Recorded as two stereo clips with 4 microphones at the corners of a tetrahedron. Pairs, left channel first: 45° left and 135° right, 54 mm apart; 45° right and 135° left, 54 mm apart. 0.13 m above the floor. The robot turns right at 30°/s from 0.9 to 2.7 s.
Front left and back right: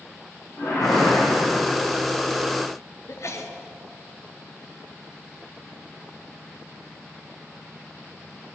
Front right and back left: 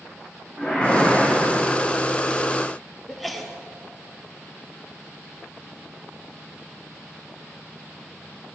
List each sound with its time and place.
0.6 s a whoosh: 65° left, 5.5 m; by 1.7 s 85° left, 5.5 m
3.1 s a sneeze: 45° left, 2 m